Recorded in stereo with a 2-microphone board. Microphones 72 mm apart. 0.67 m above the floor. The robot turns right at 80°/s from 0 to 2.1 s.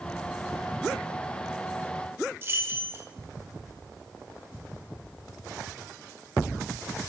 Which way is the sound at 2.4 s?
35° right (ahead or behind).